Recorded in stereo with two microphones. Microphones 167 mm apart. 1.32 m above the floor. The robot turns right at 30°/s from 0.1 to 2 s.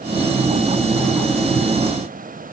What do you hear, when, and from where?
Only background noise.